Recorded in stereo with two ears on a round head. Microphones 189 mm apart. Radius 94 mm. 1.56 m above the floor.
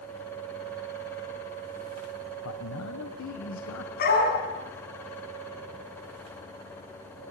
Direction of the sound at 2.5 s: 80° left.